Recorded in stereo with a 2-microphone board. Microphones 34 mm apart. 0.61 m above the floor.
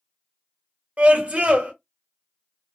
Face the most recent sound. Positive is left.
turn(degrees=-45)  # may be behind; listen again after turning